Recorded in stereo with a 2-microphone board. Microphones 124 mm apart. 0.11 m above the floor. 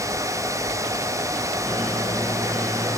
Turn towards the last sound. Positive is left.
turn(degrees=20)  # may be behind; listen again after turning